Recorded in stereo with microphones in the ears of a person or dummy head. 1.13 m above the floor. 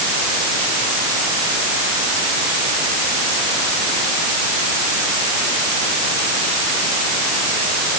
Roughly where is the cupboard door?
I don't hear a cupboard door.